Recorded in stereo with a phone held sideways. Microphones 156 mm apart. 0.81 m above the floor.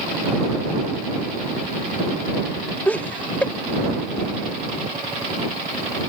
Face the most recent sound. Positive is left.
turn(degrees=10)  # may be behind; listen again after turning